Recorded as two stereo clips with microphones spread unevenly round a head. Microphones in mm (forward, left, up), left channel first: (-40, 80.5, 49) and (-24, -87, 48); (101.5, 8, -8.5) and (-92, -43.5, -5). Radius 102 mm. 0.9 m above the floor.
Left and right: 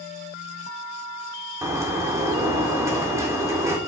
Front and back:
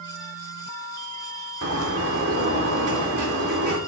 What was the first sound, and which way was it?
A bird, 155° right.